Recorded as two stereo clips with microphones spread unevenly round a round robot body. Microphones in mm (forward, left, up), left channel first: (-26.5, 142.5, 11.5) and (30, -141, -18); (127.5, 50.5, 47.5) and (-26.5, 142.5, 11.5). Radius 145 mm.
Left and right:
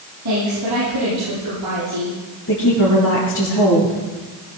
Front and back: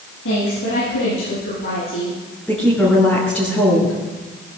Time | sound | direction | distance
0.2 | a woman speaking | 40° right | 9.5 m
2.5 | a woman speaking | 55° left | 5.5 m